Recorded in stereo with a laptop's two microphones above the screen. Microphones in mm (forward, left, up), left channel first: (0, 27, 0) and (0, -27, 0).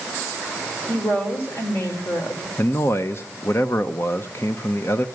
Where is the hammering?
I don't hear hammering.